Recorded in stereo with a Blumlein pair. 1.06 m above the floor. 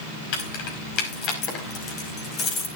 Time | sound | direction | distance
0.3 | keys jangling | 45° left | 5 m